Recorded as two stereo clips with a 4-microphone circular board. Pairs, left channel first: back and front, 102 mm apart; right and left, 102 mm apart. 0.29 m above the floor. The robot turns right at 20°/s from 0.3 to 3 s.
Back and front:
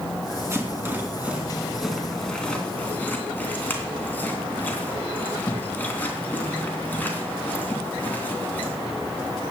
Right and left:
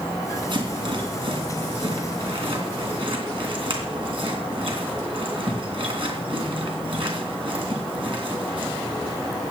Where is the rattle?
60° left, 3 m; by 8.8 s 110° left, 3 m.